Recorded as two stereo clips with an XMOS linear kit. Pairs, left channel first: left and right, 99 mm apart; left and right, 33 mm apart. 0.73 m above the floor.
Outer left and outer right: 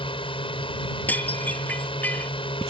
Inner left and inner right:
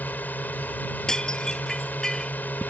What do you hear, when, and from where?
0.0 s a drone: 60° left (ahead or behind)
1.1 s dishes clattering: 15° left (ahead or behind)